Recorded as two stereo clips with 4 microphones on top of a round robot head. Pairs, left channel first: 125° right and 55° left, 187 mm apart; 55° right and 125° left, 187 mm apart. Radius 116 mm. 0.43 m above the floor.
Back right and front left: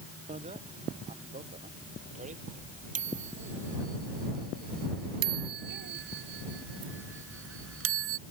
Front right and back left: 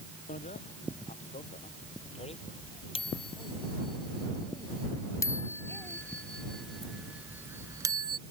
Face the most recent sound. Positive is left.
turn(degrees=55)